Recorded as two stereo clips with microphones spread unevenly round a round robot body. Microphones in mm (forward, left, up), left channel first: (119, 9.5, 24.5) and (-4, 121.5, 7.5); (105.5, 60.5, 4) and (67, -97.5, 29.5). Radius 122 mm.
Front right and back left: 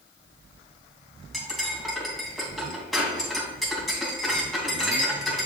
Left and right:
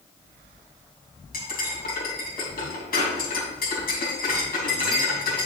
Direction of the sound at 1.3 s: 45° left.